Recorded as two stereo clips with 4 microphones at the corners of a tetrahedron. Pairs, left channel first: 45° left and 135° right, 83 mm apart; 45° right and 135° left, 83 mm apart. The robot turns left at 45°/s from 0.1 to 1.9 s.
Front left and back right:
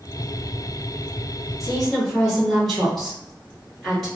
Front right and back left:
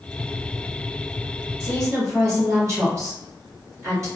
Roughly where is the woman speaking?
Behind left.